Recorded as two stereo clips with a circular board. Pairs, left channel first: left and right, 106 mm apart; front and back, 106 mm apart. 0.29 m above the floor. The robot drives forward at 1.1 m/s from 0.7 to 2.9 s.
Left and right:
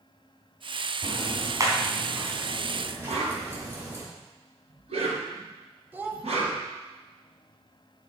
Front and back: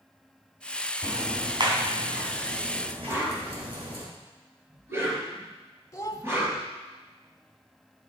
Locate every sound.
1.0 s ticking: 130° right, 1.8 m; by 4.0 s 160° right, 3.5 m
3.1 s a whoosh: 110° right, 3.5 m
5.9 s a child speaking: 35° right, 1.0 m